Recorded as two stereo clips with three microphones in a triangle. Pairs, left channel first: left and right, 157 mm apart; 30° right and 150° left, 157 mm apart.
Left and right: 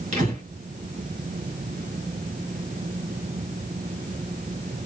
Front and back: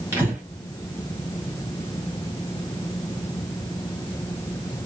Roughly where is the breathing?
Behind right.